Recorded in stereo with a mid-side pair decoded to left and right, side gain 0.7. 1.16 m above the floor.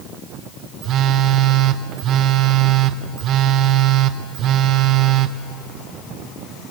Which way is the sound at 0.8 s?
45° right.